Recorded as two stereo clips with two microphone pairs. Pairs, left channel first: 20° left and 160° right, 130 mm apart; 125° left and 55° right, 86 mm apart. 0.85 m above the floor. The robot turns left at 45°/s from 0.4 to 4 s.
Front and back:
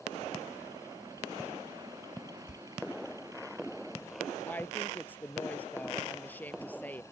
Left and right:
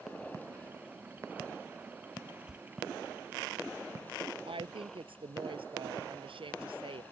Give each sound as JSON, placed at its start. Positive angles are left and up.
{"t": 2.5, "sound": "a door slam", "azimuth_deg": 25}
{"t": 4.5, "sound": "a woman speaking", "azimuth_deg": -60}